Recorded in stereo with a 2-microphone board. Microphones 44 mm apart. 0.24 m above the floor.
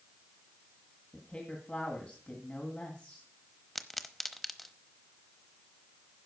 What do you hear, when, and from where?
1.1 s a woman speaking: 25° left (ahead or behind), 2.0 m
3.8 s a pop: centre (ahead or behind), 0.9 m